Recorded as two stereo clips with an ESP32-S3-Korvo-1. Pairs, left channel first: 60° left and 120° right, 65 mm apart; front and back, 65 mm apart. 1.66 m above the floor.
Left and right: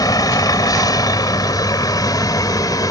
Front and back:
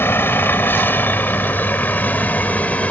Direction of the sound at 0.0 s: 55° left.